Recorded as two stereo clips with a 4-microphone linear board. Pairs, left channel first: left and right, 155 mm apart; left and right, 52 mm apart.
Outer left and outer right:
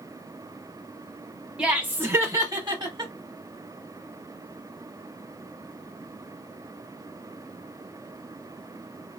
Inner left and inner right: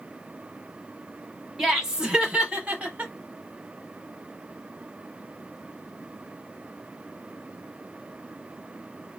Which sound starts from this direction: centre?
Laughter, at 1.6 s.